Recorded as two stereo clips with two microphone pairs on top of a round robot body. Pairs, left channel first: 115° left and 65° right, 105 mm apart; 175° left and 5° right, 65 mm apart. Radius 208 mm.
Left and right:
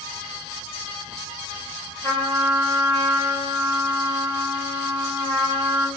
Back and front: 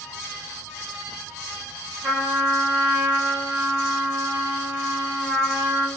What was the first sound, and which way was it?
A trumpet, 55° left.